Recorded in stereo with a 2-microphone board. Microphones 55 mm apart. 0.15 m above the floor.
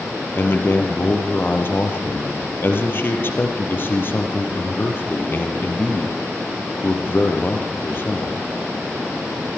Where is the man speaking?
45° left (ahead or behind), 4 m.